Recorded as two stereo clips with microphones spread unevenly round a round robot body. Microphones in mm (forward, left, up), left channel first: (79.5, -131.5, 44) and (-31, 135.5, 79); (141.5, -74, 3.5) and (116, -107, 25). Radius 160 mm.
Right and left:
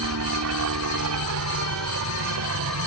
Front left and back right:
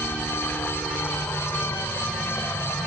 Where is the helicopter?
105° left; by 2.9 s 80° left.